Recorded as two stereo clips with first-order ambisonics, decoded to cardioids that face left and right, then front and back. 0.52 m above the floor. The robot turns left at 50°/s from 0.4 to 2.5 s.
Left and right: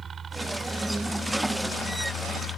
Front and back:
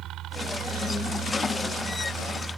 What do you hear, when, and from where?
0.0 s a helicopter: 155° right; by 2.6 s 100° left